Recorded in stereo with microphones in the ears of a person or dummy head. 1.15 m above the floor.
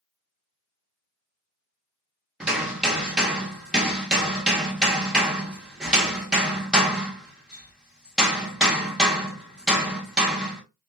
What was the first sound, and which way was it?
Hammering, 5° right (ahead or behind).